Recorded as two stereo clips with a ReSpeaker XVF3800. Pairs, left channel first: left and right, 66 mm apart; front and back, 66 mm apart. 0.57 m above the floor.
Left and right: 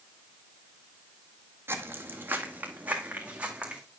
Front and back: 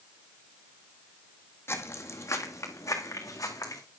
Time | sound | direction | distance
1.7 | footsteps | 40° right | 1.5 m